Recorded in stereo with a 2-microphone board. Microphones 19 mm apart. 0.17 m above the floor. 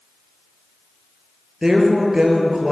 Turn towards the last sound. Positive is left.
turn(degrees=-30)  # may be behind; listen again after turning